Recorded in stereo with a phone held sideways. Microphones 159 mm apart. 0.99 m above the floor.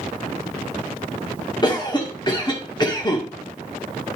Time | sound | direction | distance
1.6 | a cough | 30° left (ahead or behind) | 2.0 m